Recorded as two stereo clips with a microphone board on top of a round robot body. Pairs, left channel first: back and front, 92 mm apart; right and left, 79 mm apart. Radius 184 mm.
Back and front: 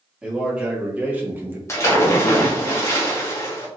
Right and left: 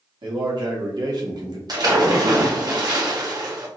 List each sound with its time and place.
0.2 s a man speaking: 80° left, 2.5 m; by 1.6 s 65° left, 1.7 m
1.7 s a splash: 125° left, 1.9 m